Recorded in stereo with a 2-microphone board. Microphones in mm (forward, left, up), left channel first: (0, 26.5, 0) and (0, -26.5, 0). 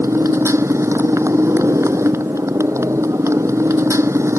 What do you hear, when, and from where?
0.0 s a motorcycle: 60° right (ahead or behind)